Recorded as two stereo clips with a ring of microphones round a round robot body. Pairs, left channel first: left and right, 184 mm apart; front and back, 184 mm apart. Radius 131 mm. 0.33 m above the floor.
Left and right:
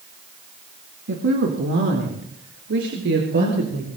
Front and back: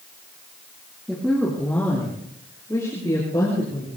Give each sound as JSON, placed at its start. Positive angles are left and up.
{"t": 1.1, "sound": "a woman speaking", "azimuth_deg": -90, "distance_m": 3.0}